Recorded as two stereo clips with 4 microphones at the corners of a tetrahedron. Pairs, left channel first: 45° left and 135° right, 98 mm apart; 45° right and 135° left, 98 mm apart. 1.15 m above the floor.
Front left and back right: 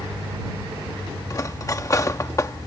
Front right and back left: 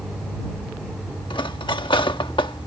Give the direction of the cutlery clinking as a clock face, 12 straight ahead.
12 o'clock.